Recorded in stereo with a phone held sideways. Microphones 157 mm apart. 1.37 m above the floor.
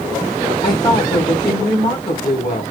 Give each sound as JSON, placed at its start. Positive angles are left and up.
{"t": 0.6, "sound": "a woman speaking", "side_deg": 30, "distance_m": 2.5}